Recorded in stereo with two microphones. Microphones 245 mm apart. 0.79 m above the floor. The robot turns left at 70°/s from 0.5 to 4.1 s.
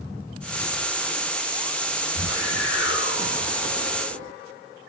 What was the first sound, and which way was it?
A whoosh, 120° left.